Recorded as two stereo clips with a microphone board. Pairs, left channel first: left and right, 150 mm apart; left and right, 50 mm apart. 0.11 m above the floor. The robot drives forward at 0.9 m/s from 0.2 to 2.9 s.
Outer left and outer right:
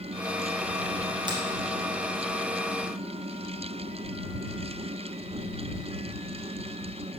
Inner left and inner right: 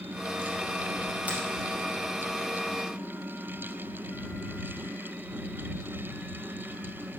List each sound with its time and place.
1.3 s a finger snap: 30° right (ahead or behind), 2.5 m